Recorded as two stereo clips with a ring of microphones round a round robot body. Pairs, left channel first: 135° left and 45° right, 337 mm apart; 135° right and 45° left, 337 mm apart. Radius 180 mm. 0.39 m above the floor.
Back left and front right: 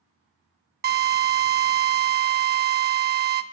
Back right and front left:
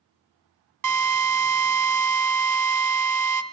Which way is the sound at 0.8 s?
15° left.